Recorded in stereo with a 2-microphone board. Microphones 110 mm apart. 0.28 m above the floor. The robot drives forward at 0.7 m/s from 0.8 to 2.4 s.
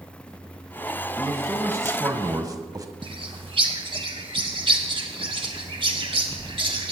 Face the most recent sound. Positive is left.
turn(degrees=-55)  # may be behind; listen again after turning